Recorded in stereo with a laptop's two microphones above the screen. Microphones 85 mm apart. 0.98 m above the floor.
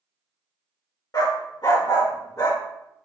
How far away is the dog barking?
About 0.9 m.